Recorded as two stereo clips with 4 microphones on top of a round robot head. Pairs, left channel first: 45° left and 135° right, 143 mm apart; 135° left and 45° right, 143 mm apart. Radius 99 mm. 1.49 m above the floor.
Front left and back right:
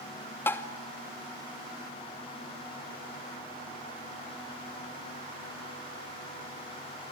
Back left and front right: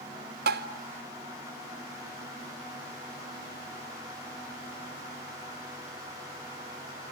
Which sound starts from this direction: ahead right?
Tapping, at 0.5 s.